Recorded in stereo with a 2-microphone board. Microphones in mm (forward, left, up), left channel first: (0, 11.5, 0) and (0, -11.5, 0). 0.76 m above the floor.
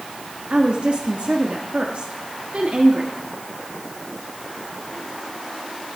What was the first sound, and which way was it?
A woman speaking, 55° right (ahead or behind).